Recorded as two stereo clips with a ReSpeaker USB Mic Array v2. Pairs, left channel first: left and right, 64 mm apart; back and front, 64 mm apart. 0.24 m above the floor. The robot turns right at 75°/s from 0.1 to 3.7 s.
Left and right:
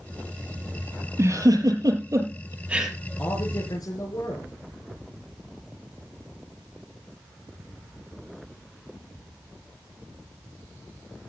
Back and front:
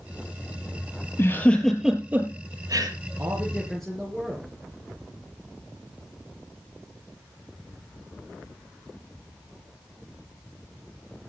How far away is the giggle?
About 4.5 m.